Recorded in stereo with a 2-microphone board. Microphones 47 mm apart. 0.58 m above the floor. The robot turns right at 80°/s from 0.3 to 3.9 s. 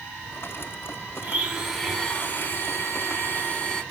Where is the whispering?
No whispering in this recording.